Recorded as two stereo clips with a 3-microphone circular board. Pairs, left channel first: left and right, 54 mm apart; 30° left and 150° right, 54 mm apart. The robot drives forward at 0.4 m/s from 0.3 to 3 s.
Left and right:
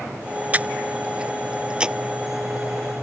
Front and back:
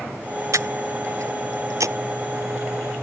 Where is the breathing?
150° right; by 2.0 s 165° right.